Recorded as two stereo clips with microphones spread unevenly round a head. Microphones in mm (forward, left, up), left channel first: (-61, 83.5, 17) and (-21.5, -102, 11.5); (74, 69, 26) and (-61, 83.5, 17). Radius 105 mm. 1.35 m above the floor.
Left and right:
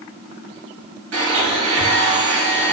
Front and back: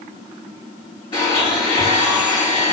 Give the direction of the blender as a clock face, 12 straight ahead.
2 o'clock.